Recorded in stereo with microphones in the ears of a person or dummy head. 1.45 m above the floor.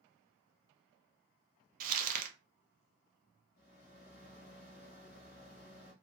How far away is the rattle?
About 0.7 m.